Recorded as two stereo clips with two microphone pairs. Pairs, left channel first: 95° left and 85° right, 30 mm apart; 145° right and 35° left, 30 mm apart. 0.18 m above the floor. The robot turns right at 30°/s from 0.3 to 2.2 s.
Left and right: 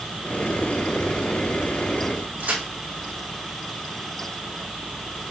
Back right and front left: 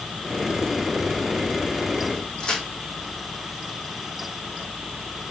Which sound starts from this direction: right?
A crack, at 2.4 s.